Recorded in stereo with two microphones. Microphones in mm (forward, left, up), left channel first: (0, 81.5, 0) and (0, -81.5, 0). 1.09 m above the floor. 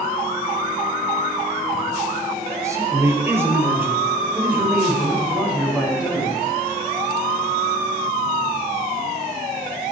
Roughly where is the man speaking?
Centre.